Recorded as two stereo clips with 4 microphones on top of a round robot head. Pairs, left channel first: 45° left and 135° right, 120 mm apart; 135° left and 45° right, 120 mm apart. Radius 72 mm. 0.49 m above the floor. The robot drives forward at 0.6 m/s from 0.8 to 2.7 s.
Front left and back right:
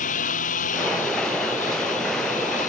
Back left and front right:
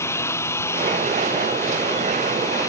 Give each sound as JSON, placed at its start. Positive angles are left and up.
{"t": 0.0, "sound": "a lawn mower", "azimuth_deg": 65}